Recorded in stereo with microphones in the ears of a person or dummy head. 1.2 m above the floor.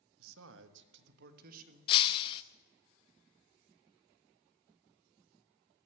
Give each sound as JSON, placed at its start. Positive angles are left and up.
{"t": 0.2, "sound": "a man speaking", "side_deg": -85, "distance_m": 1.3}
{"t": 1.9, "sound": "breaking glass", "side_deg": 30, "distance_m": 0.7}